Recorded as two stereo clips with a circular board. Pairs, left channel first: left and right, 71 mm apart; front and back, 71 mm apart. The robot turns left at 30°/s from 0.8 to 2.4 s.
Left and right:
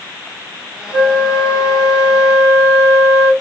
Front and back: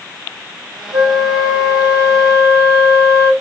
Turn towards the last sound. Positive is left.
turn(degrees=-130)